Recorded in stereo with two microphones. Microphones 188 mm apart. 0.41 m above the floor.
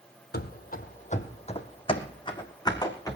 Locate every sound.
0.3 s running footsteps: 60° left (ahead or behind), 0.9 m; by 3.2 s 20° left (ahead or behind), 2 m